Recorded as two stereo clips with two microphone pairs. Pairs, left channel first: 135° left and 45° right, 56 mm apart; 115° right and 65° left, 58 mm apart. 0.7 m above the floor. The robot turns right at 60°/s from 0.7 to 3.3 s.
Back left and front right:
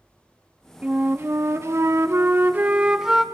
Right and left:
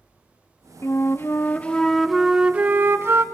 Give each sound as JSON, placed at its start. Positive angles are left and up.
{"t": 0.8, "sound": "a flute", "azimuth_deg": -105, "distance_m": 0.5}